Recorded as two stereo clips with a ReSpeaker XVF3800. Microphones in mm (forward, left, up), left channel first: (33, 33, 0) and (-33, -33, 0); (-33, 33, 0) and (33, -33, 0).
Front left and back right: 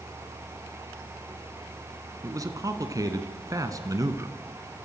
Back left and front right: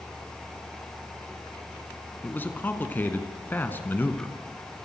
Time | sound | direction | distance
2.2 | a man speaking | 165° right | 2 m